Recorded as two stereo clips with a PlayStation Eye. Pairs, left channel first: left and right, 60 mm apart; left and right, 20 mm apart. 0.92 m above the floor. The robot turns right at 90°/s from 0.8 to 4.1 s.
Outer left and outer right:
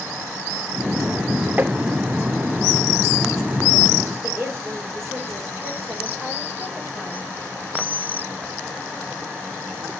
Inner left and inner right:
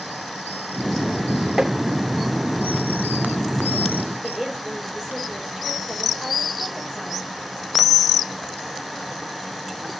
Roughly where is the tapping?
Right.